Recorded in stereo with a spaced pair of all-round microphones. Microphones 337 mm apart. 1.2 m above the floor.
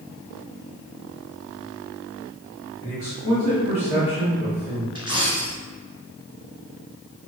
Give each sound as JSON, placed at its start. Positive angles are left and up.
{"t": 2.8, "sound": "a man speaking", "side_deg": 40, "distance_m": 1.3}
{"t": 5.0, "sound": "a dropped coin", "side_deg": -15, "distance_m": 1.2}